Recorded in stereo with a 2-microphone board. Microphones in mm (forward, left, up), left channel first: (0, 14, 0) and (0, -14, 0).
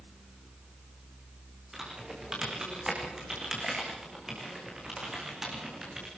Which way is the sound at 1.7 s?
15° right (ahead or behind).